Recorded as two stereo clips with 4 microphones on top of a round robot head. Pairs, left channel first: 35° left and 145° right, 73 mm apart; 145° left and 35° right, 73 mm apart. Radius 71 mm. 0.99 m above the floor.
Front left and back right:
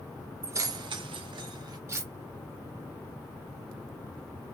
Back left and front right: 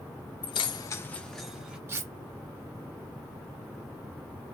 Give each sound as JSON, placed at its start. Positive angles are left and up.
{"t": 0.4, "sound": "keys jangling", "azimuth_deg": 155, "distance_m": 0.7}
{"t": 1.9, "sound": "cutlery clinking", "azimuth_deg": -90, "distance_m": 0.7}